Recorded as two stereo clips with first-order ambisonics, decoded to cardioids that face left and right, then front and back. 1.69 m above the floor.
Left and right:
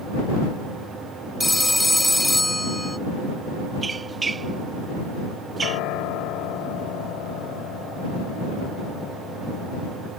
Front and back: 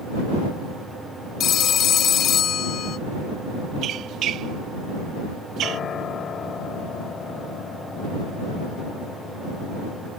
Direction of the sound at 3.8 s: 155° right.